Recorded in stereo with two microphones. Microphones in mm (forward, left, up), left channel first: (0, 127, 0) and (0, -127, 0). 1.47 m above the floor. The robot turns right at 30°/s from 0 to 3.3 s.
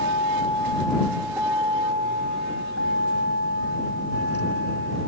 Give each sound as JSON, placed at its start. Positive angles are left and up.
{"t": 0.0, "sound": "a vehicle", "azimuth_deg": 145}